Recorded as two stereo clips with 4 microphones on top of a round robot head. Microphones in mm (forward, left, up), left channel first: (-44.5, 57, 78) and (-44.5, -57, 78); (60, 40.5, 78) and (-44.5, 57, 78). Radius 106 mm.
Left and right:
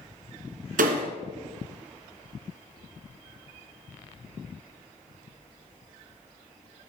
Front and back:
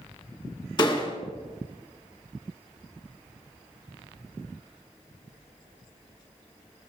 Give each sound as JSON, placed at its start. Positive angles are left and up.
{"t": 0.8, "sound": "a door slam", "azimuth_deg": -70, "distance_m": 2.0}